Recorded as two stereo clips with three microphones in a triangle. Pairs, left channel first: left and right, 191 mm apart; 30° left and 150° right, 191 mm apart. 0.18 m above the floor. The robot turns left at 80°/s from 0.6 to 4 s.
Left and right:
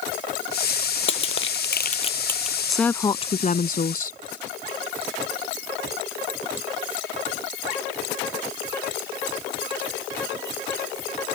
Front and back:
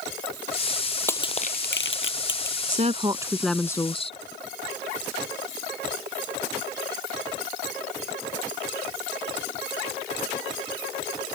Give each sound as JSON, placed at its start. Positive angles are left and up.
{"t": 1.1, "sound": "crushing", "azimuth_deg": 110}
{"t": 2.7, "sound": "a woman speaking", "azimuth_deg": -175}